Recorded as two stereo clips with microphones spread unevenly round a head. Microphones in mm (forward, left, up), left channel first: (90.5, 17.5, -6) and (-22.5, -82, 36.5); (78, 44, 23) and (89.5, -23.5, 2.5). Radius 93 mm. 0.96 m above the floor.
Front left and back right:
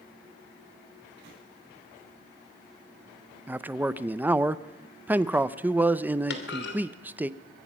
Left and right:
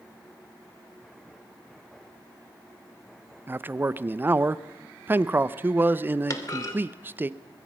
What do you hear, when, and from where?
3.5 s a man speaking: 50° right, 0.7 m
6.3 s a clunk: 60° left, 2.5 m